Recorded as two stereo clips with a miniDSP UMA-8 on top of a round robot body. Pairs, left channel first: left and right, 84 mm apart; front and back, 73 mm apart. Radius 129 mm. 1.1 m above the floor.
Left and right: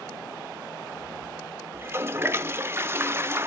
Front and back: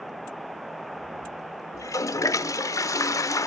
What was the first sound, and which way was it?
A toilet flushing, 35° right.